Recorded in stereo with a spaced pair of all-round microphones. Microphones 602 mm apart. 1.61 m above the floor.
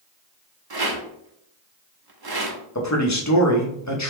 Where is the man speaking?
30° left (ahead or behind), 0.6 m.